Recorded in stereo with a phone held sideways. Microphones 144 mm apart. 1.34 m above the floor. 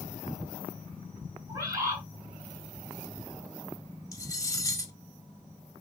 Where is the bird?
25° right (ahead or behind), 5.5 m.